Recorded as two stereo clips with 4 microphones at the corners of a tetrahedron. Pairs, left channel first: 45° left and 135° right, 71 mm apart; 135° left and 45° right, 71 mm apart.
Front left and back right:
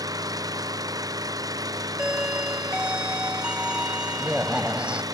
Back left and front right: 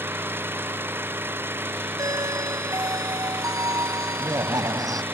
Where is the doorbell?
60° right.